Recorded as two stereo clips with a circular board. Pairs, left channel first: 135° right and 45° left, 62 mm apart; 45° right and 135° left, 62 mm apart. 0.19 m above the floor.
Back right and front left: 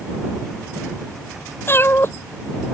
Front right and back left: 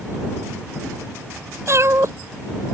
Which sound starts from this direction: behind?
A cat meowing, at 1.7 s.